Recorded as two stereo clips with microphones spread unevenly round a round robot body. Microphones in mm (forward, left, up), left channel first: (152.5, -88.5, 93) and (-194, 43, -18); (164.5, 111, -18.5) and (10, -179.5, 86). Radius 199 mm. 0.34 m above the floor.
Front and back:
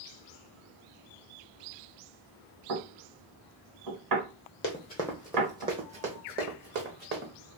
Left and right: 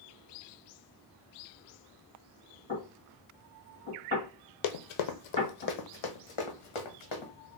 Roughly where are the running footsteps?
Ahead left.